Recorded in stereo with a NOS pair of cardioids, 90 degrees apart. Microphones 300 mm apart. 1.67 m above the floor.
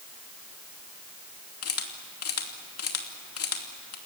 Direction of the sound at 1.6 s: 50° left.